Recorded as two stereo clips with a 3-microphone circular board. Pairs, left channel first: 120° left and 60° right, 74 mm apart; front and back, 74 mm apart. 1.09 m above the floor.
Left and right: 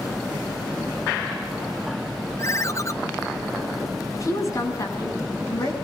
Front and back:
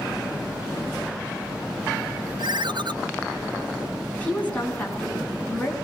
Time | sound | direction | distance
2.4 | a ringtone | 165° left | 0.9 m
4.1 | a woman speaking | 70° left | 9 m